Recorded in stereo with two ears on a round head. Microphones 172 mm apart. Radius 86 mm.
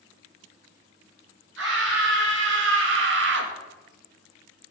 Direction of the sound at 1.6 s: 75° right (ahead or behind).